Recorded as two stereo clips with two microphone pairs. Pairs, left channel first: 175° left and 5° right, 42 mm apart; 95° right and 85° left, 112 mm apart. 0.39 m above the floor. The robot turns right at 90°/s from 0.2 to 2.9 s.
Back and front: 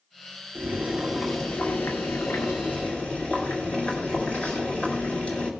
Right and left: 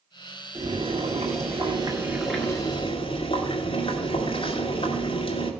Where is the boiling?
20° left, 2 m; by 5.5 s 125° right, 2 m.